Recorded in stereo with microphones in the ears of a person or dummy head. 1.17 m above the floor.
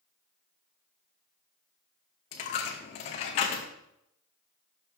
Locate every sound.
2.3 s a dropped coin: 35° left (ahead or behind), 0.7 m